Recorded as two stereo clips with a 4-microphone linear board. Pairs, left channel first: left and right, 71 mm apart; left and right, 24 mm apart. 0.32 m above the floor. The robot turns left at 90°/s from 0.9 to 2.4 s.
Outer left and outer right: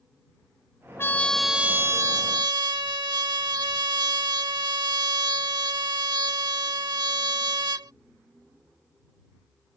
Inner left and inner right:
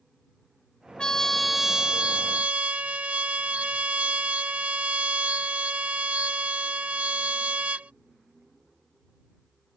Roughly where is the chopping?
I don't hear chopping.